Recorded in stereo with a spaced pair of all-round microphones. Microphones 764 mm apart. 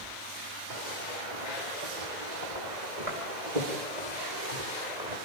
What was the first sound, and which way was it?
Footsteps, 70° right (ahead or behind).